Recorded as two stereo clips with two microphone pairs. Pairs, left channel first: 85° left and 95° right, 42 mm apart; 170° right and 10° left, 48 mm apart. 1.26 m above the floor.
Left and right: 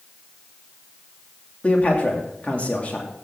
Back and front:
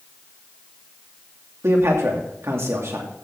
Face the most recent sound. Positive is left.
turn(degrees=30)